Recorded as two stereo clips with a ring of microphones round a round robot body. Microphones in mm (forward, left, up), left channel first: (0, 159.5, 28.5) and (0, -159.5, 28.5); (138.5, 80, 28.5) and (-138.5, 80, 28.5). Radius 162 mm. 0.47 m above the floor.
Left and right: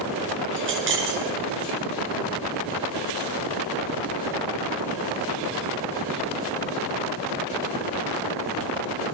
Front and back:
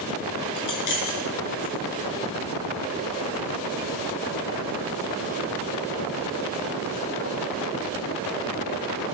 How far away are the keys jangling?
About 5 m.